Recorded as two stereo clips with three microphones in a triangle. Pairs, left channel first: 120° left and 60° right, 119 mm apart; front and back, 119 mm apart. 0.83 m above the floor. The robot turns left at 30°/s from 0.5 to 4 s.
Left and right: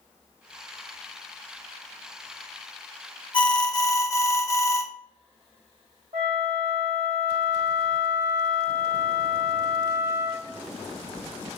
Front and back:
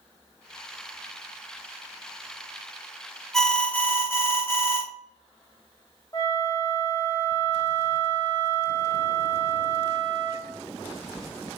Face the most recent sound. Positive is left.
turn(degrees=-60)